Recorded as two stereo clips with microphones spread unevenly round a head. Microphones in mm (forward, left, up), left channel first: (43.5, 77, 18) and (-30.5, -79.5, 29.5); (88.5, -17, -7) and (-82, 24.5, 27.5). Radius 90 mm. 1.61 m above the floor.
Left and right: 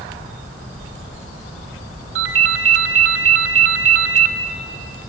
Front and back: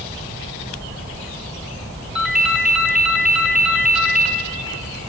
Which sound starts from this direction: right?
A ringtone, at 2.1 s.